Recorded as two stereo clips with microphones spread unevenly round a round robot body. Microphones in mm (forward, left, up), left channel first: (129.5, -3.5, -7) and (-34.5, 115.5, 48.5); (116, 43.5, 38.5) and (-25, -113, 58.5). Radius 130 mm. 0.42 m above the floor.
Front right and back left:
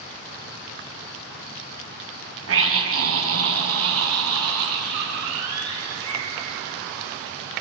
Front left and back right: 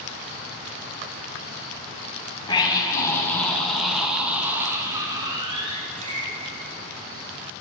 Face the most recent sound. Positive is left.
turn(degrees=165)